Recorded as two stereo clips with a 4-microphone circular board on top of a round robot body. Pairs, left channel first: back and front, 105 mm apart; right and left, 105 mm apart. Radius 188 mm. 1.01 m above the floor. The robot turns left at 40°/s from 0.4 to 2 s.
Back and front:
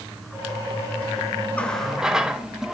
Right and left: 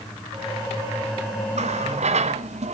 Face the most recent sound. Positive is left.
turn(degrees=85)